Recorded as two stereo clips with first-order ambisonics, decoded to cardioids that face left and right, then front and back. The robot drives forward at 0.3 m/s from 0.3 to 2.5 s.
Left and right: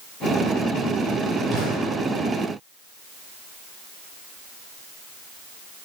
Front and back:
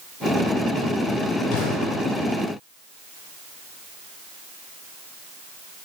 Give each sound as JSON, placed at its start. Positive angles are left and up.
{"t": 1.5, "sound": "an explosion", "azimuth_deg": -30, "distance_m": 9.0}